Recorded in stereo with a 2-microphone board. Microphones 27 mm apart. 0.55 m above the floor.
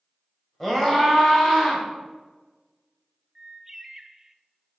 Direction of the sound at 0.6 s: 5° left (ahead or behind).